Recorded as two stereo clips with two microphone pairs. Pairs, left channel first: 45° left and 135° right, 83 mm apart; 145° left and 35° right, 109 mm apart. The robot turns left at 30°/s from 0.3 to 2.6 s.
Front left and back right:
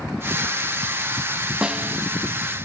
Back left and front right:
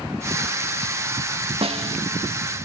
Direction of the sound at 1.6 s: 55° right.